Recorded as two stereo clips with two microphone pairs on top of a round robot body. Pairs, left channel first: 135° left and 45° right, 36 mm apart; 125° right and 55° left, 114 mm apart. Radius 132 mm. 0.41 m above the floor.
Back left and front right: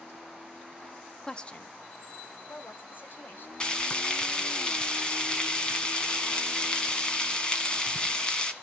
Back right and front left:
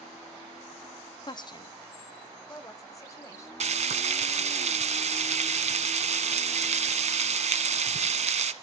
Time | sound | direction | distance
1.2 | a woman speaking | 150° right | 0.8 m
3.6 | frying | 70° left | 1.5 m